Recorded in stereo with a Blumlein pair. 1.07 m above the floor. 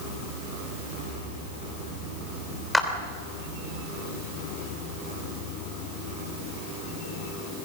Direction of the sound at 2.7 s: Straight ahead.